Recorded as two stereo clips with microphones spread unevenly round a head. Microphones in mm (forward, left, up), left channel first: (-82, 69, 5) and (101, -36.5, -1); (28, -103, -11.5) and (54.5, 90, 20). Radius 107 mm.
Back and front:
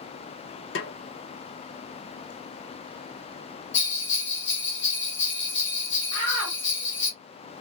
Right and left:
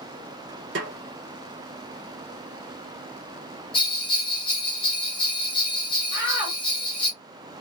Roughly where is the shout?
Behind left.